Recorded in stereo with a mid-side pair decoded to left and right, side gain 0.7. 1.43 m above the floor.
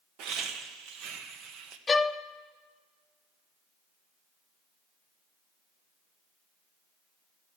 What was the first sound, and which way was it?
Laughter, 60° right.